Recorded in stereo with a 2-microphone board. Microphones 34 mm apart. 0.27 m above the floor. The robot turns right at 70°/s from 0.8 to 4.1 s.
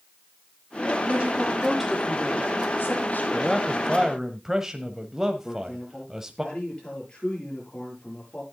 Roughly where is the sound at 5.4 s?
Left.